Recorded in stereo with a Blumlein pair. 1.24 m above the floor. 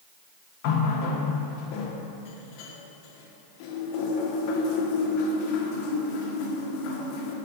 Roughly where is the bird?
I don't hear a bird.